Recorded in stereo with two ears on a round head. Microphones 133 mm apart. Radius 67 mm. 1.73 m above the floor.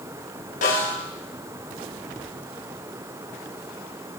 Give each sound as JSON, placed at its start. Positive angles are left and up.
{"t": 0.6, "sound": "a snare drum", "side_deg": 65, "distance_m": 4.5}